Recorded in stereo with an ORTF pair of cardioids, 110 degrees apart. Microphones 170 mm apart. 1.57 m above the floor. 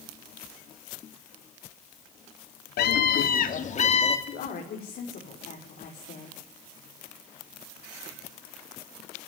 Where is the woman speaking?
55° left, 5.5 m.